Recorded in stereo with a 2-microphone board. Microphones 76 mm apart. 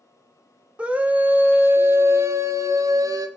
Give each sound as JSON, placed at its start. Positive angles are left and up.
{"t": 0.8, "sound": "a scream", "side_deg": -15, "distance_m": 2.5}